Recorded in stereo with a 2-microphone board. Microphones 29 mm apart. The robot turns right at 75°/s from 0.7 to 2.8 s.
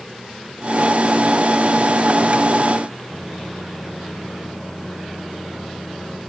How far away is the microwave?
About 9 m.